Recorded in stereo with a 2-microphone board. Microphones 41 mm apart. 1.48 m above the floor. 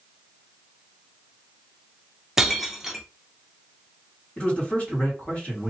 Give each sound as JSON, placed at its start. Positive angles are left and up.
{"t": 2.4, "sound": "breaking glass", "side_deg": -10, "distance_m": 0.6}
{"t": 4.4, "sound": "a man speaking", "side_deg": 30, "distance_m": 2.0}